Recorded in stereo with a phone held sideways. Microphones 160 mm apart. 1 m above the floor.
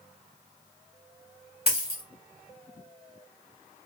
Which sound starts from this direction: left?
A dropped coin, at 1.7 s.